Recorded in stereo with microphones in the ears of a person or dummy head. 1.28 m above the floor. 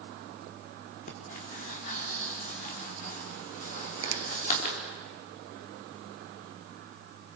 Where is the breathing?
45° left (ahead or behind), 3.5 m.